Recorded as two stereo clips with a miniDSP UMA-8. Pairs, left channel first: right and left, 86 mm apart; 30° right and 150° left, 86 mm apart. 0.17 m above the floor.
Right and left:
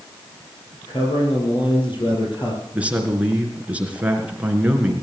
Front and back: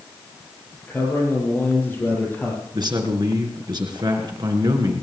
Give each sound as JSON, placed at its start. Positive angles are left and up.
{"t": 0.9, "sound": "a man speaking", "azimuth_deg": -95, "distance_m": 4.5}
{"t": 2.7, "sound": "a man speaking", "azimuth_deg": 165, "distance_m": 3.0}